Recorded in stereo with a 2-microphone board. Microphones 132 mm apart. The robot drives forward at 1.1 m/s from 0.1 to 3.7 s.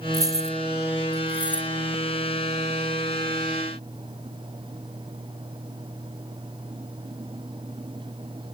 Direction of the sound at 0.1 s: 25° right (ahead or behind).